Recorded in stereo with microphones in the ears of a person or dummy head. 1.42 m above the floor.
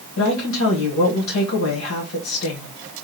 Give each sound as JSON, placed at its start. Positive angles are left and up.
{"t": 0.2, "sound": "a woman speaking", "side_deg": 70, "distance_m": 1.6}